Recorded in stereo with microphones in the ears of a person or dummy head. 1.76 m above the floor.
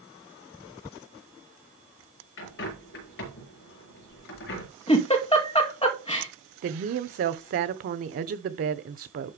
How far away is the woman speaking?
About 1.0 m.